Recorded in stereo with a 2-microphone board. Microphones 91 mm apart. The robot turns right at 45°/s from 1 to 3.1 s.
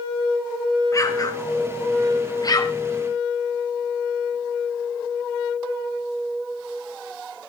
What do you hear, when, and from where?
0.9 s an explosion: 35° left (ahead or behind), 1.7 m; by 2.8 s 40° left (ahead or behind), 1.7 m